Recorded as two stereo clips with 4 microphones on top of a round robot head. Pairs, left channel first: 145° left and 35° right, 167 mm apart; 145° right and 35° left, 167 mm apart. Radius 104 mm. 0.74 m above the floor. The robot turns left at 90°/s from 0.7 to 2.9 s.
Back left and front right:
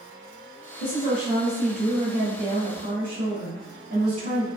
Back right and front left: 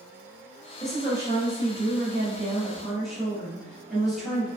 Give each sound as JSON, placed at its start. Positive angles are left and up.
{"t": 0.8, "sound": "a woman speaking", "azimuth_deg": 135, "distance_m": 1.5}